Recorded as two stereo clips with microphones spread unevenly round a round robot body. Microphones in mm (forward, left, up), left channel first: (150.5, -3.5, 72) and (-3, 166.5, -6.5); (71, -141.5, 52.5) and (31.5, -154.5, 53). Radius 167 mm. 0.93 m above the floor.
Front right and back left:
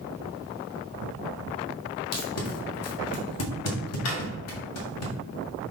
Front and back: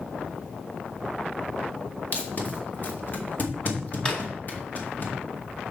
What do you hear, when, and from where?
2.1 s tape being pulled: 30° right, 1.9 m
4.0 s a drawer: 50° right, 1.8 m